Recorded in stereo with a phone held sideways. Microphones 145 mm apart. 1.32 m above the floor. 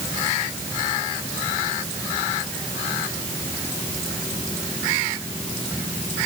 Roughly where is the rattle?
I don't hear a rattle.